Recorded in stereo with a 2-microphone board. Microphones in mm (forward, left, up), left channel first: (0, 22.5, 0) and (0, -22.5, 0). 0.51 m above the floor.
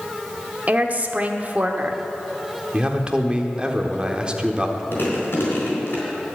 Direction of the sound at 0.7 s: 35° right (ahead or behind).